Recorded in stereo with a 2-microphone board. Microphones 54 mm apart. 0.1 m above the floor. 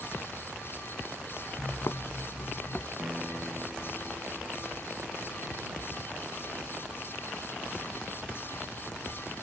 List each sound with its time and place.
1.6 s footsteps: 85° left; by 2.9 s 30° left (ahead or behind)
3.0 s a piano: 25° right (ahead or behind)